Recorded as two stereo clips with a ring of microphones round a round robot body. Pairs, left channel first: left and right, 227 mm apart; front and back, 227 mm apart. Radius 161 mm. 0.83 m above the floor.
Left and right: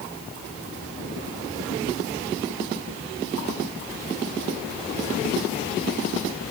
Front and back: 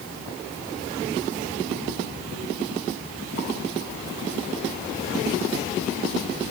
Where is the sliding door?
No sliding door in this recording.